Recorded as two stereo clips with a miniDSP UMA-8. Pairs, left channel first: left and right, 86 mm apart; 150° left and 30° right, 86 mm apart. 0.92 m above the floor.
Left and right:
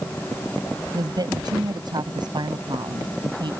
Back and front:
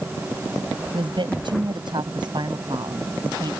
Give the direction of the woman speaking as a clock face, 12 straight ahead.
2 o'clock.